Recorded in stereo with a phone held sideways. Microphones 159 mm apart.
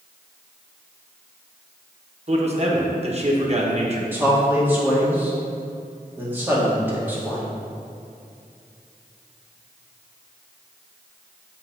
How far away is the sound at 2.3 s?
About 1.1 m.